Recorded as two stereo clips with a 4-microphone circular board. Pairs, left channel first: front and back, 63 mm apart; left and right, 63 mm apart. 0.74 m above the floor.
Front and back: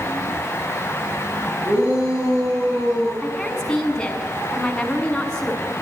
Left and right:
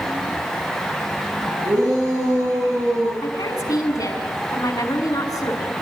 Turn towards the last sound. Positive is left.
turn(degrees=80)